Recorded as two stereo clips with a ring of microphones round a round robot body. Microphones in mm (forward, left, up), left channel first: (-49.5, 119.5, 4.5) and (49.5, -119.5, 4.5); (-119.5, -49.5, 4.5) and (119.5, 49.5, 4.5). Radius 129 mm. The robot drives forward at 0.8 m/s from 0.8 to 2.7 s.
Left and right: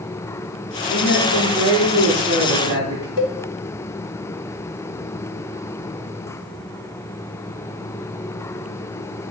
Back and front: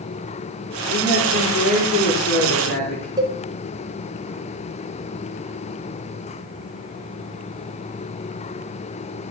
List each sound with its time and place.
0.9 s a man speaking: 175° right, 6 m
3.2 s a cowbell: 100° left, 1.3 m